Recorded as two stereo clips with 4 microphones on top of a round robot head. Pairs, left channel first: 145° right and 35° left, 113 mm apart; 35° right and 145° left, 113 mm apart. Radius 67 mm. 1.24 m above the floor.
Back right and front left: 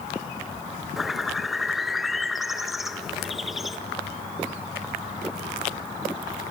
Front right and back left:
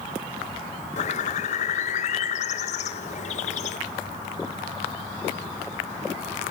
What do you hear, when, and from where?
1.0 s a bird: 55° right, 1.5 m